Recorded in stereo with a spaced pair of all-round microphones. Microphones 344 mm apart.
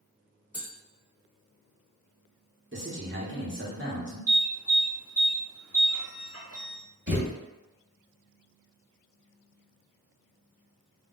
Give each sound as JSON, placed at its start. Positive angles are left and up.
{"t": 0.5, "sound": "tapping", "side_deg": -5, "distance_m": 1.3}
{"t": 2.7, "sound": "a man speaking", "side_deg": -35, "distance_m": 0.9}
{"t": 4.3, "sound": "an alarm", "side_deg": -40, "distance_m": 1.2}
{"t": 7.1, "sound": "a thud", "side_deg": -35, "distance_m": 1.3}